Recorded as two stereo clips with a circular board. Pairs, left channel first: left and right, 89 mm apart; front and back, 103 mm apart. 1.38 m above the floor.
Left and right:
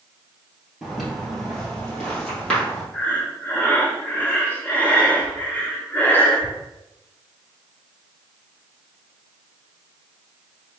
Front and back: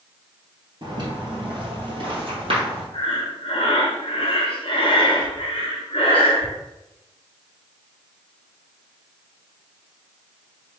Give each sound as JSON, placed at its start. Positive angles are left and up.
{"t": 0.8, "sound": "footsteps", "azimuth_deg": -175, "distance_m": 1.8}
{"t": 2.9, "sound": "breathing", "azimuth_deg": 20, "distance_m": 0.9}